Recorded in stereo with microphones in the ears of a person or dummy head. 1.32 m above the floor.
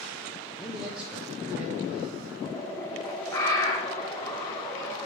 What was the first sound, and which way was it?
A man speaking, 5° right (ahead or behind).